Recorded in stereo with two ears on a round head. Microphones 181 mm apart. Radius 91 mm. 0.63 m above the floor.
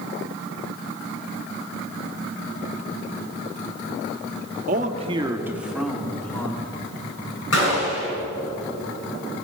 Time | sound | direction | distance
4.7 | a man speaking | 45° right (ahead or behind) | 1.0 m
7.5 | a gunshot | 70° left (ahead or behind) | 5.5 m